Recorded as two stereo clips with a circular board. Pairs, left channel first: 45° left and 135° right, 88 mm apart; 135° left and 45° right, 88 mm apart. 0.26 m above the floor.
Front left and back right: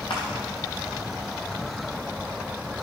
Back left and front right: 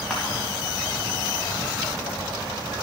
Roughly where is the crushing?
Ahead left.